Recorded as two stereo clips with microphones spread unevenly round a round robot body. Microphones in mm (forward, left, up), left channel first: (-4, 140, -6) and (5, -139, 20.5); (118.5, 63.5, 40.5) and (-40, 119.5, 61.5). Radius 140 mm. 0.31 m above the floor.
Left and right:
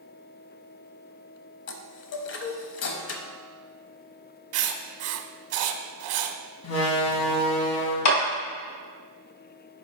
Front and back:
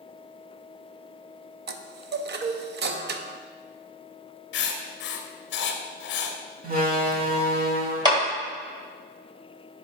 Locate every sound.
1.7 s a chime: 135° left, 0.6 m
4.5 s writing: 45° right, 0.6 m
6.6 s a door slam: 125° left, 1.4 m
8.1 s a clap: 90° left, 2.0 m